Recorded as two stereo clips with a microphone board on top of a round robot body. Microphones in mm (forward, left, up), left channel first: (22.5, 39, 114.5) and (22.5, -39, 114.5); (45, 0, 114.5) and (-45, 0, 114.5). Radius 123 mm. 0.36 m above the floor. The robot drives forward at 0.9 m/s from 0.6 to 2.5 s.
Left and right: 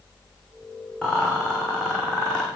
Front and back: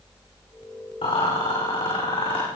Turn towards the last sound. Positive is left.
turn(degrees=15)